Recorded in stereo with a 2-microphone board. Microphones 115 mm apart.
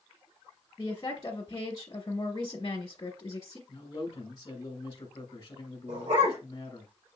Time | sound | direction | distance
0.8 | a woman speaking | 35° left (ahead or behind) | 1.4 m
3.7 | a man speaking | 35° left (ahead or behind) | 1.7 m
5.9 | a dog barking | 80° right | 3 m